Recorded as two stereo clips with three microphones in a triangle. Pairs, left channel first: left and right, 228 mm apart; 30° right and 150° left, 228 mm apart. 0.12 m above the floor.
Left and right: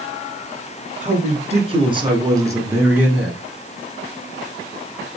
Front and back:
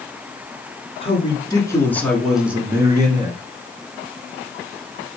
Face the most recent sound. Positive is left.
turn(degrees=-175)